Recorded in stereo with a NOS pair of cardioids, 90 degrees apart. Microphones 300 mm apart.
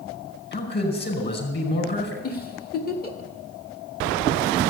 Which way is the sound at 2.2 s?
30° left.